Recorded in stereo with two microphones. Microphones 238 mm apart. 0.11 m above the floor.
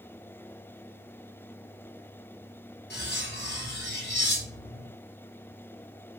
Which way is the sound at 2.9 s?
50° left (ahead or behind).